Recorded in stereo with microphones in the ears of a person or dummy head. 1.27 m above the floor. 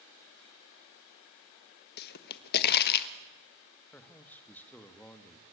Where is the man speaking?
5° left (ahead or behind), 1.8 m.